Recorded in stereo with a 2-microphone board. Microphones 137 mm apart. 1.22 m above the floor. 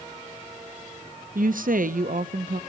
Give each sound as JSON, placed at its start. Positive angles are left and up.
{"t": 1.4, "sound": "a woman speaking", "side_deg": -80, "distance_m": 0.6}